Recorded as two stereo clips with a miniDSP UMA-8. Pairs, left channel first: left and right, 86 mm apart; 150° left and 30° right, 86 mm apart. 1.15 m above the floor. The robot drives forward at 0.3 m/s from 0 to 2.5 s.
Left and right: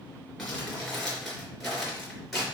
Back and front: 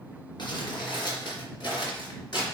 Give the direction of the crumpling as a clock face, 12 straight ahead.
6 o'clock.